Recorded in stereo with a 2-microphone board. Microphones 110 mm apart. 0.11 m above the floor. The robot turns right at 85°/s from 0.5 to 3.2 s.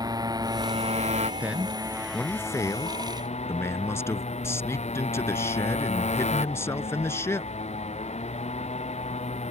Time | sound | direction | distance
0.0 | a motorcycle | 145° right | ?
1.4 | a man speaking | 15° right (ahead or behind) | ?